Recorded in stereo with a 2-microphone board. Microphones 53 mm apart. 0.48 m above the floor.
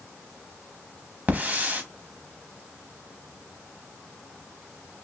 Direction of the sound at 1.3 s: 30° right (ahead or behind).